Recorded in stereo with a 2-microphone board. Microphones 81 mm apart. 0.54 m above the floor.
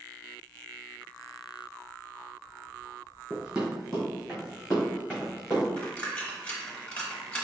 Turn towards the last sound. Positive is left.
turn(degrees=20)  # may be behind; listen again after turning